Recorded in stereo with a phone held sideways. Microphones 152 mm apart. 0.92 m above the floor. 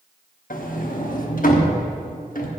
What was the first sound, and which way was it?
A sliding door, 65° left (ahead or behind).